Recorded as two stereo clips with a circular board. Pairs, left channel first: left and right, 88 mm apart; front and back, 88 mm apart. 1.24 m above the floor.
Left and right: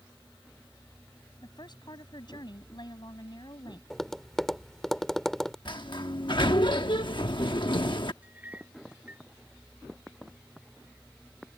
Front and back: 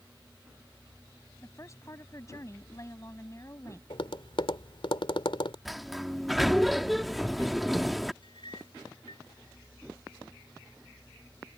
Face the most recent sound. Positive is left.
turn(degrees=-20)